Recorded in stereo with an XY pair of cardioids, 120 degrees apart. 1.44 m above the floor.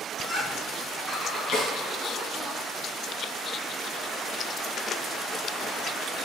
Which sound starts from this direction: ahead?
Laughter, at 0.1 s.